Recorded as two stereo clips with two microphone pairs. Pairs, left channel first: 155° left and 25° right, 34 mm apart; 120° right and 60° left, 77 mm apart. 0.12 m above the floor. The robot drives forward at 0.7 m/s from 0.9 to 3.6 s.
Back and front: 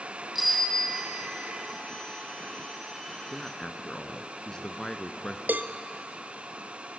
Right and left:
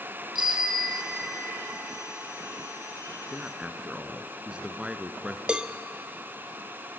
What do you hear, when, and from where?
0.3 s a bicycle bell: 70° left, 3.5 m; by 1.6 s 75° left, 3.5 m
3.3 s a man speaking: 85° left, 1.2 m; by 5.4 s 110° left, 1.2 m
5.5 s a cowbell: 10° right, 0.6 m